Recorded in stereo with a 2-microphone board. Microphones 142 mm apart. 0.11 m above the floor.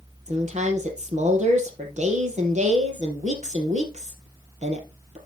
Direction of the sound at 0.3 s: 50° right (ahead or behind).